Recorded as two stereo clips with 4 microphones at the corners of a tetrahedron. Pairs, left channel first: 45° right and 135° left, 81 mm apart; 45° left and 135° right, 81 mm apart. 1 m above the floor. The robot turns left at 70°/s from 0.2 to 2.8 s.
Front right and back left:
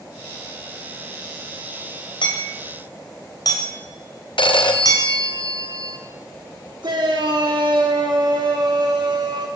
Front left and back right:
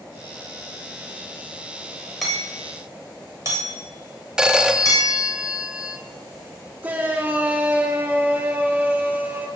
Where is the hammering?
45° right, 3.5 m; by 5.1 s 85° right, 3.5 m.